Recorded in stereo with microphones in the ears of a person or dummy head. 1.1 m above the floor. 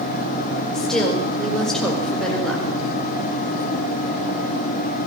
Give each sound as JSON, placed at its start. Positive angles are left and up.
{"t": 0.7, "sound": "a woman speaking", "side_deg": 5, "distance_m": 5.0}